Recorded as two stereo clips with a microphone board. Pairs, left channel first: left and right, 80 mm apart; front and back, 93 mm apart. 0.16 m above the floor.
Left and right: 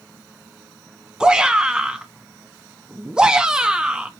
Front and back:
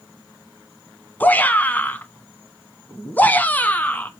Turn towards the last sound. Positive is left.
turn(degrees=-25)